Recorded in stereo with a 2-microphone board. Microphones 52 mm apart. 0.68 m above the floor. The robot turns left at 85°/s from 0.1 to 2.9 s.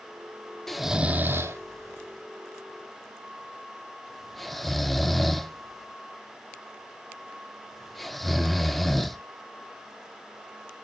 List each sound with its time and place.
0.7 s snoring: 5° left (ahead or behind), 0.7 m; by 9.2 s centre (ahead or behind), 0.7 m